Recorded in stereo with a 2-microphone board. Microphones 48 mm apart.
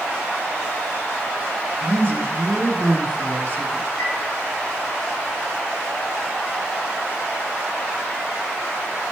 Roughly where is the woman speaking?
Right.